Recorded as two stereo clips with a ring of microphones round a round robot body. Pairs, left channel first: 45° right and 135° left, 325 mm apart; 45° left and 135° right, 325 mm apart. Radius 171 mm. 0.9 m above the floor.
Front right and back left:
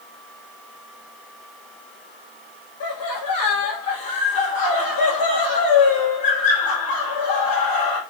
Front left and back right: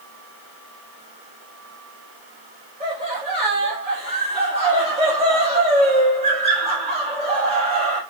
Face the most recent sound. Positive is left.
turn(degrees=-65)